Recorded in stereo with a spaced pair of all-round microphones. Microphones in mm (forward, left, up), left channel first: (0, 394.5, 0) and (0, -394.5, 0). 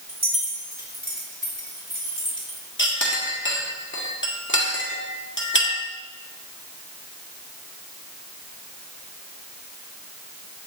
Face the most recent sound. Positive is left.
turn(degrees=15)  # may be behind; listen again after turning